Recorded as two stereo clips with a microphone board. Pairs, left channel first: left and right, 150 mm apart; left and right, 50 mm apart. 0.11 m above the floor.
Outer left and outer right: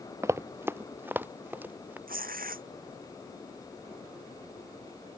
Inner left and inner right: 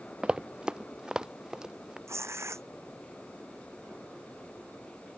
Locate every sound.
0.2 s running footsteps: 20° right (ahead or behind); by 2.0 s 10° right (ahead or behind)
2.1 s tearing paper: 70° right (ahead or behind)